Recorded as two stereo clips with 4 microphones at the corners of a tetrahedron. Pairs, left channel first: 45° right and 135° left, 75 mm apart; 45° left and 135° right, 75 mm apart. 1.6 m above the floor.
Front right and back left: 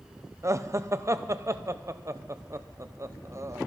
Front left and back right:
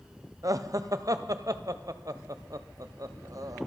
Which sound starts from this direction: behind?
Laughter, at 0.4 s.